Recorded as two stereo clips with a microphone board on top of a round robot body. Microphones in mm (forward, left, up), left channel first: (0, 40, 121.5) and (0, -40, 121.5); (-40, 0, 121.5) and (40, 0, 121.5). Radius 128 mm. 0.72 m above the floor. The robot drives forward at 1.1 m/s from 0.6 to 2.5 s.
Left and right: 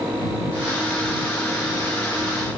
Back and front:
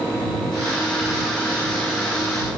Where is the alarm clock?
I don't hear an alarm clock.